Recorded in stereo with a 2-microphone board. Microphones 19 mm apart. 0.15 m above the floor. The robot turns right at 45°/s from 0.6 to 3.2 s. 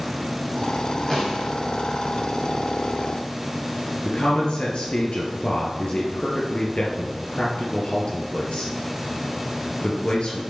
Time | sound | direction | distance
1.1 | a snare drum | 10° left (ahead or behind) | 3.5 m
4.0 | a man speaking | 60° left (ahead or behind) | 2.5 m